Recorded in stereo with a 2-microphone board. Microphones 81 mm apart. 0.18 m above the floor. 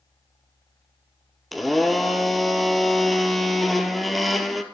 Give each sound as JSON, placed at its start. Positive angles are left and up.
{"t": 1.5, "sound": "a blender", "side_deg": 0, "distance_m": 1.3}